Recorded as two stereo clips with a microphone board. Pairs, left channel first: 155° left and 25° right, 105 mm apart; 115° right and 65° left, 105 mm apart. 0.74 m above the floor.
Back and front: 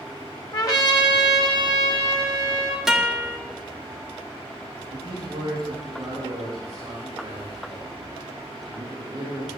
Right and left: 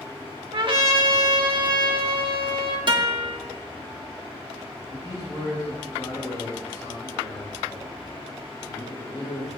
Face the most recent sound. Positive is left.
turn(degrees=-70)